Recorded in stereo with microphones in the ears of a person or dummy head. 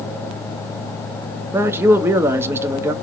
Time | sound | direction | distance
1.5 | a man speaking | 15° right (ahead or behind) | 0.9 m